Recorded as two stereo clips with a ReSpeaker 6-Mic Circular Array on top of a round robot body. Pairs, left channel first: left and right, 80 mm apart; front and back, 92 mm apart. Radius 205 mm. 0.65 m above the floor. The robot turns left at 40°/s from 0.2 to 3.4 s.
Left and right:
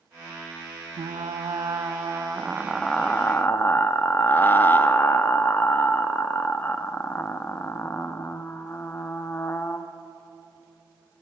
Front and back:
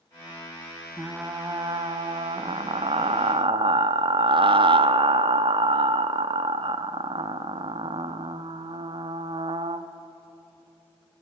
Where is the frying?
110° right, 1.0 m; by 9.9 s 155° left, 1.0 m.